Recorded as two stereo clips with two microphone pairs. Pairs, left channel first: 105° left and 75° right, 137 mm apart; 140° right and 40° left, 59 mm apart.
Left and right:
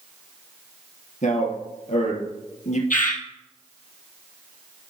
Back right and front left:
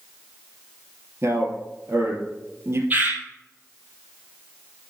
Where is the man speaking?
80° left, 3 m.